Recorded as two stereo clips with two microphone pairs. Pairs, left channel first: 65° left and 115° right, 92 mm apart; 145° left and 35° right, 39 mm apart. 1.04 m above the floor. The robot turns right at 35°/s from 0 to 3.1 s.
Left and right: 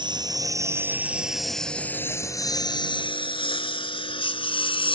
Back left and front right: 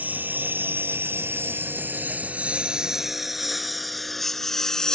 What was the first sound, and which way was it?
A lawn mower, 80° right.